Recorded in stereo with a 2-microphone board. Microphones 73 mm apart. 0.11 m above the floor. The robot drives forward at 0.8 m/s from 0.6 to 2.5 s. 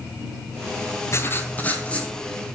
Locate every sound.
1.1 s writing: 40° left (ahead or behind), 0.6 m; by 2.1 s 15° left (ahead or behind), 1.3 m